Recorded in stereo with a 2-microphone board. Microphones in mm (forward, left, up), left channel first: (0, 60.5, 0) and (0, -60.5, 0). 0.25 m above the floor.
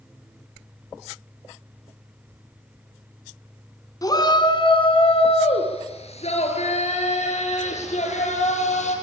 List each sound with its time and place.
4.0 s a shout: 30° left (ahead or behind), 2.5 m; by 8.9 s 75° left (ahead or behind), 8.5 m